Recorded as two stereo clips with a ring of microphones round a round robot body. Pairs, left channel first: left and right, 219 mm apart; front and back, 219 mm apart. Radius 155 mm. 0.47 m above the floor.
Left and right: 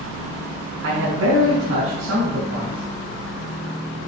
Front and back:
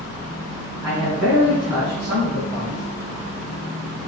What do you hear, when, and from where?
0.8 s a man speaking: 85° right, 3.5 m; by 2.8 s 105° right, 4 m